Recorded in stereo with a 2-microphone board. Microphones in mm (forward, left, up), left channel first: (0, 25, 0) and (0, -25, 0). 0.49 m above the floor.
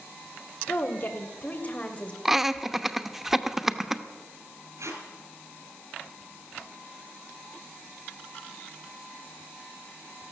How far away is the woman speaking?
About 1.8 m.